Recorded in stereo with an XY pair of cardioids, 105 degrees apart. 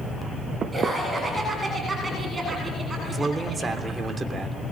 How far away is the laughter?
About 7.5 m.